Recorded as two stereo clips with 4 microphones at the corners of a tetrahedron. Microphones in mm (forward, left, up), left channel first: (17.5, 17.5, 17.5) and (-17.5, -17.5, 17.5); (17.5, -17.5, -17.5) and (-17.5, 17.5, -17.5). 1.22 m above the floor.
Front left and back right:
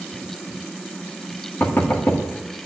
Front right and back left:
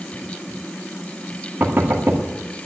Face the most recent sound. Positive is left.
turn(degrees=95)